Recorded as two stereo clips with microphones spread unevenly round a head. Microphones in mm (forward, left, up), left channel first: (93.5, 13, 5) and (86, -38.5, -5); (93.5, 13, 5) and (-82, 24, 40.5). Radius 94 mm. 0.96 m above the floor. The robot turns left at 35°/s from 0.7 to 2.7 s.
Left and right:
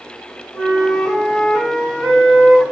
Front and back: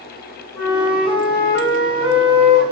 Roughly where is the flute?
Ahead left.